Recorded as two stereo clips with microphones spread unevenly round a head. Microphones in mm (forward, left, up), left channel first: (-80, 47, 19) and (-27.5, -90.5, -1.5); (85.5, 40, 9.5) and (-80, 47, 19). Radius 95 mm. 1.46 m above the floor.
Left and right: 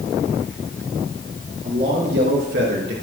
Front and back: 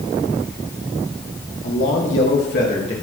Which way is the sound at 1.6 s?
15° right.